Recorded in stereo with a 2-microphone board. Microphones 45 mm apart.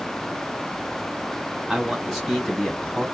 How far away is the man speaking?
About 1.3 m.